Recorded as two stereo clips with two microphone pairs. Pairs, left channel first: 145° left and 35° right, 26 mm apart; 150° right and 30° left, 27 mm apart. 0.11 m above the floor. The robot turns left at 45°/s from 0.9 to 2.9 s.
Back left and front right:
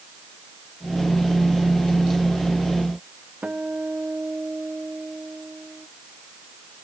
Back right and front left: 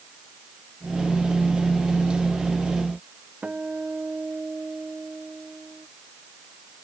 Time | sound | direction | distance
3.4 | a guitar | 10° right | ?